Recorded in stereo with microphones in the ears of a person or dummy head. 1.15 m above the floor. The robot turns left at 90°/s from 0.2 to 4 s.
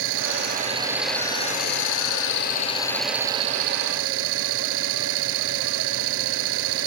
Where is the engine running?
105° right; by 6.9 s 85° right.